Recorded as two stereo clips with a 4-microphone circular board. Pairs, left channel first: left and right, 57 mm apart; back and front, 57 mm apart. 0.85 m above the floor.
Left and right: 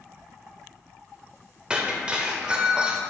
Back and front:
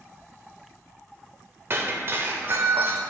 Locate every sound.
1.7 s breaking glass: 25° right, 0.7 m